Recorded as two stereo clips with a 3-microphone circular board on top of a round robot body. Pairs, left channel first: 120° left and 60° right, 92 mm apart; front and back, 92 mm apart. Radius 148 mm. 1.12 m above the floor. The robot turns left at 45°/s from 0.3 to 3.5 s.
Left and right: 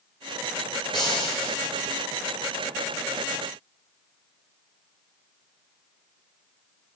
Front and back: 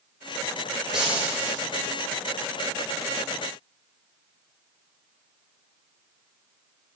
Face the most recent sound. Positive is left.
turn(degrees=50)